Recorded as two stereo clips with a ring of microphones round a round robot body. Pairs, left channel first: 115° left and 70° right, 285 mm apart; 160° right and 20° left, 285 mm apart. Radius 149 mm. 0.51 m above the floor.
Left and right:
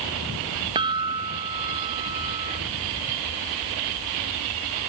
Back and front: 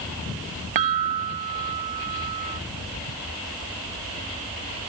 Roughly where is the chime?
Ahead.